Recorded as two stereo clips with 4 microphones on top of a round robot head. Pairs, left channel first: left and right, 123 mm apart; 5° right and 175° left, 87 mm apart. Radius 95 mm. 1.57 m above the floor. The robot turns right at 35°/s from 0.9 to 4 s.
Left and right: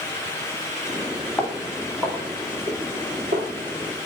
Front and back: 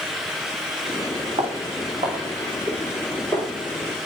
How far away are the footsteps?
About 3.5 m.